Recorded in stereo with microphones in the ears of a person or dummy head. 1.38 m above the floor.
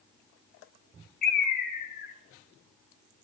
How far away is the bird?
About 0.9 m.